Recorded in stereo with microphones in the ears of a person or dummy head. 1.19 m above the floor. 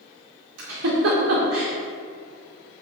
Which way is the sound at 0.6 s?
65° right (ahead or behind).